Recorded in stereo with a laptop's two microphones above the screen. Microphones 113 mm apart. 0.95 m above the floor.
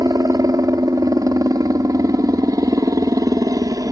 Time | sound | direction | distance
0.0 | a helicopter | 30° right (ahead or behind) | ?